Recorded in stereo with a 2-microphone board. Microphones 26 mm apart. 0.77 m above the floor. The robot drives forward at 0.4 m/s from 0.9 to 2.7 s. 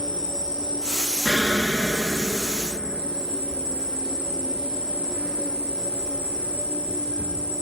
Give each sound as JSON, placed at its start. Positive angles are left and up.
{"t": 0.0, "sound": "an insect", "side_deg": 55, "distance_m": 1.6}
{"t": 1.2, "sound": "an explosion", "side_deg": 30, "distance_m": 0.6}